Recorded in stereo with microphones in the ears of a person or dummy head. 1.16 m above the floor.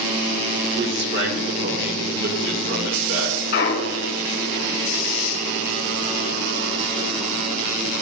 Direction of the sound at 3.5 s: 45° left (ahead or behind).